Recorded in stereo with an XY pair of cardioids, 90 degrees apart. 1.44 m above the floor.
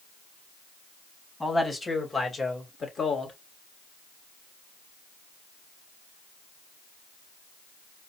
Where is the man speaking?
15° left, 2.5 m; by 3.4 s 45° left, 2.0 m.